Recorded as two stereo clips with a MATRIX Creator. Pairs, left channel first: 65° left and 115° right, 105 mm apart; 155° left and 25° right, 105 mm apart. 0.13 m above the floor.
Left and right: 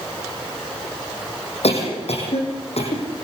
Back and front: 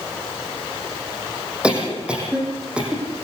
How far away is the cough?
About 7.5 m.